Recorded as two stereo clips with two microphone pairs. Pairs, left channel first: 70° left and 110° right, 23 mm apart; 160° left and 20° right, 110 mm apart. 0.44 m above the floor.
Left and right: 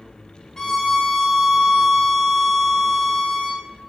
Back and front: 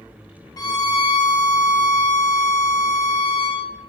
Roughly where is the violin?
Behind left.